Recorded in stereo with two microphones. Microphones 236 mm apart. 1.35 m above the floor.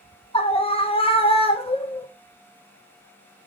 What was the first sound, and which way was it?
A scream, 25° left (ahead or behind).